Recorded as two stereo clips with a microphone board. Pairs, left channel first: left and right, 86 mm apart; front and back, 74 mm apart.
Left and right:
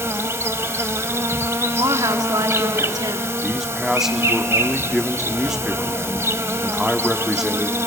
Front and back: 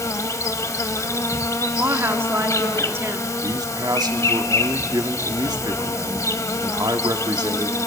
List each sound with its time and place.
0.0 s an insect: 35° right, 0.8 m
1.8 s a woman speaking: 125° right, 1.1 m
3.4 s a man speaking: 175° right, 1.2 m